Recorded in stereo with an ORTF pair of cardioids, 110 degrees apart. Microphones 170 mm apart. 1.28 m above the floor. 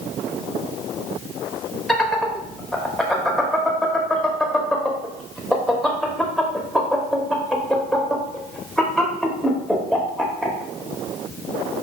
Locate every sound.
1.9 s laughter: straight ahead, 0.8 m